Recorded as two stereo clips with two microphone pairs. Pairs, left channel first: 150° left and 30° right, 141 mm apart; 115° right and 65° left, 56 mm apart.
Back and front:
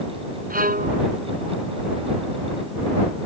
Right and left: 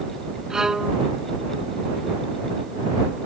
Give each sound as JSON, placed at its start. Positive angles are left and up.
{"t": 0.5, "sound": "a violin", "azimuth_deg": -20}